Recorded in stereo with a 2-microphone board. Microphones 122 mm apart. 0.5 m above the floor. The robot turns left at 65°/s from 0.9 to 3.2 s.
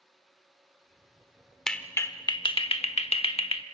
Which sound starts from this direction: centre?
A clap, at 1.7 s.